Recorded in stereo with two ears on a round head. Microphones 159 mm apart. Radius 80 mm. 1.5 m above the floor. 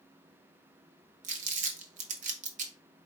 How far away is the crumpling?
About 0.9 m.